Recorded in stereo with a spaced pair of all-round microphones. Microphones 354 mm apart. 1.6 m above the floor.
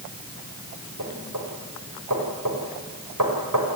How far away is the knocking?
About 5.5 m.